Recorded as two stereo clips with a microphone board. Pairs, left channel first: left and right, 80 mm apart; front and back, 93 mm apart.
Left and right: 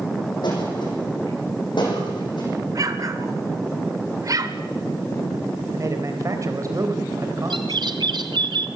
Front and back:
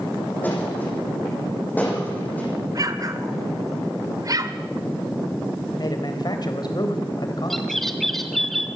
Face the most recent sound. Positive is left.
turn(degrees=-90)